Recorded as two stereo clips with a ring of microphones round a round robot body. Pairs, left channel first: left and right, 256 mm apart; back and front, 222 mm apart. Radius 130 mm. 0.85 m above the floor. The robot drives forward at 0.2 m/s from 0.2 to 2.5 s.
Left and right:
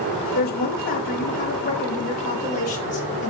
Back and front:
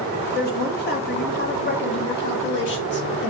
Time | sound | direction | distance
0.3 | a woman speaking | 140° left | 1.1 m